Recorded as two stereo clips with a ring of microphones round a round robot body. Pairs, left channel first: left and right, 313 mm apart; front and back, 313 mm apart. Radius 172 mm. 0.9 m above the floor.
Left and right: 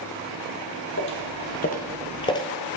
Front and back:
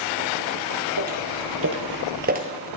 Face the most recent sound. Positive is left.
turn(degrees=155)